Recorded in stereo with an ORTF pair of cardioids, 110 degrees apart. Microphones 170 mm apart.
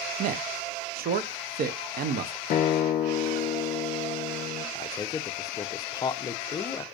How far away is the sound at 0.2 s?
About 0.6 m.